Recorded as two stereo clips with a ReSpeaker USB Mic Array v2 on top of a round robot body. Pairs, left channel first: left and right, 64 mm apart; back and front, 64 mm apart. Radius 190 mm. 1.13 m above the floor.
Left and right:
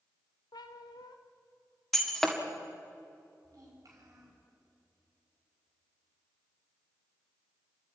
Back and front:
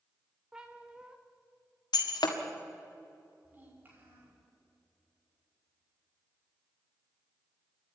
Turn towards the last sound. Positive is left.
turn(degrees=-60)